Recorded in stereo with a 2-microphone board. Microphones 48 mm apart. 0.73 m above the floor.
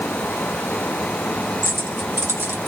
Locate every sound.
1.6 s keys jangling: 65° right (ahead or behind), 1.2 m; by 2.7 s 60° right (ahead or behind), 1.7 m